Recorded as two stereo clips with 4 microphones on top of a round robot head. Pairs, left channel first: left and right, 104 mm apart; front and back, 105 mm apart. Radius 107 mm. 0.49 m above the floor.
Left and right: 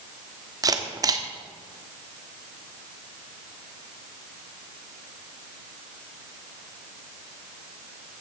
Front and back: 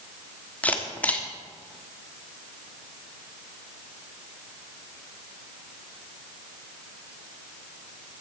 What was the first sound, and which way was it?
A camera shutter, 70° right.